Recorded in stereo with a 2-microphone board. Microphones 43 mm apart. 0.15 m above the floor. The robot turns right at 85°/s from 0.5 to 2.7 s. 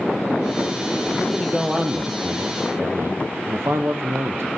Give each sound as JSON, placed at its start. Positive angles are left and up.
{"t": 1.2, "sound": "a man speaking", "azimuth_deg": 155, "distance_m": 3.5}